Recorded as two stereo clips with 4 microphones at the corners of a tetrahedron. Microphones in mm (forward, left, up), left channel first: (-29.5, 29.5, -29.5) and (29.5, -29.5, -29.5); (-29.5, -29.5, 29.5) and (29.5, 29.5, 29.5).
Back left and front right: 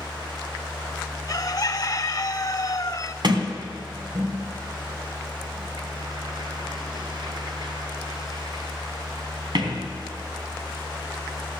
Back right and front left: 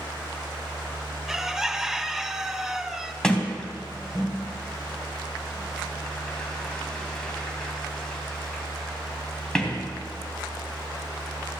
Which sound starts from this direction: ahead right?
A sliding door, at 3.2 s.